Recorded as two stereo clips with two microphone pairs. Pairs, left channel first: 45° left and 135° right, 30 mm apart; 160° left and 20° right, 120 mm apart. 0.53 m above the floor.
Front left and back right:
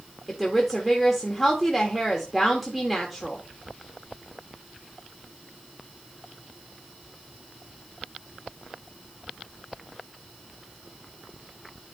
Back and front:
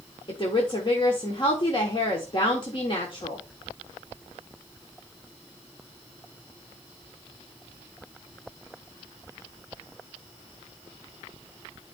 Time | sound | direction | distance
0.3 | a woman speaking | 140° left | 1.5 m